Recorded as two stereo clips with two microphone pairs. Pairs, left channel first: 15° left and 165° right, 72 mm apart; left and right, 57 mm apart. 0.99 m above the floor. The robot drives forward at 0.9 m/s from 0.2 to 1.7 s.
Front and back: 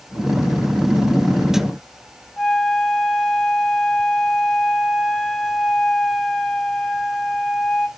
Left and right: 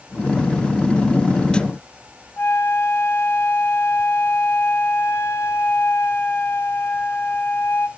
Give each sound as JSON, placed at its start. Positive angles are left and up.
{"t": 2.4, "sound": "a flute", "azimuth_deg": 90, "distance_m": 1.1}